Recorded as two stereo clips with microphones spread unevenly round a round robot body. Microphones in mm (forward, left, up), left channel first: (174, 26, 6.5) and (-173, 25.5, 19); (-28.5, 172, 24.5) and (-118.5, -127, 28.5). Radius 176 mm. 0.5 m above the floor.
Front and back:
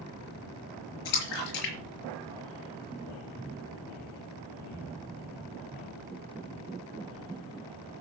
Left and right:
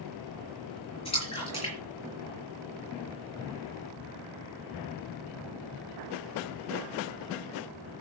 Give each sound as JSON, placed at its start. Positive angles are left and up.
{"t": 1.1, "sound": "a splash", "azimuth_deg": 0, "distance_m": 5.0}